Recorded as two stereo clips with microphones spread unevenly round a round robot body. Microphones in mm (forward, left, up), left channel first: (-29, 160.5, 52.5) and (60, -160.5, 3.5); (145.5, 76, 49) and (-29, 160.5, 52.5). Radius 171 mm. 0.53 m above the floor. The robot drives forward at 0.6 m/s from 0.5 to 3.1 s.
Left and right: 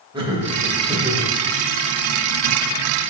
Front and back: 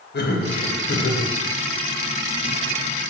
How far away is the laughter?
About 2.5 m.